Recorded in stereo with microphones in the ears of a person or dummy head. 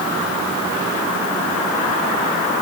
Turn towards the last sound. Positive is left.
No sound to turn to.